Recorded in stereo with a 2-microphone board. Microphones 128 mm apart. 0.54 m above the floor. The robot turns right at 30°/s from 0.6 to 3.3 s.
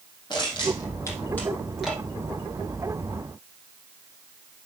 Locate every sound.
0.3 s crushing: 35° left (ahead or behind), 4 m; by 2.0 s 5° right (ahead or behind), 4 m